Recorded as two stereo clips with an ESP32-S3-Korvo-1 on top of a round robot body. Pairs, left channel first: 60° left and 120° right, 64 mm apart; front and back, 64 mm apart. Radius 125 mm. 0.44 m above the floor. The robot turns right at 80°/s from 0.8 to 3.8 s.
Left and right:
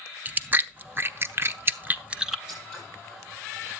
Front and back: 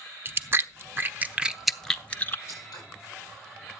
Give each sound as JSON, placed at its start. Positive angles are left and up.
{"t": 0.2, "sound": "chewing", "azimuth_deg": -165, "distance_m": 0.8}
{"t": 2.5, "sound": "scissors", "azimuth_deg": -45, "distance_m": 10.0}